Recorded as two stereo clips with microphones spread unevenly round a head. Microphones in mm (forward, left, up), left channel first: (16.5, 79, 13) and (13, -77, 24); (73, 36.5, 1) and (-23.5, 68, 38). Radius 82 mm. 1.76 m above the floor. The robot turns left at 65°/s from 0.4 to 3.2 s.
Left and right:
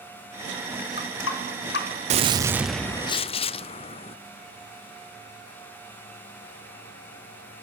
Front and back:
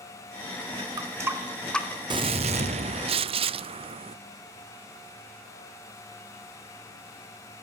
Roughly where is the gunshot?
Behind right.